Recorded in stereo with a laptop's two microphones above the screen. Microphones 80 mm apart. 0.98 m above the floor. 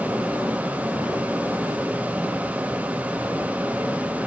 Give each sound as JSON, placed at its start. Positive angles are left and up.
{"t": 0.0, "sound": "a fan", "side_deg": -20, "distance_m": 0.8}